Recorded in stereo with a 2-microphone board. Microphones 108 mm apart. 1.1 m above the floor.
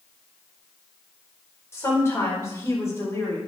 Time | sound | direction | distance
1.7 | a woman speaking | 25° left (ahead or behind) | 4.5 m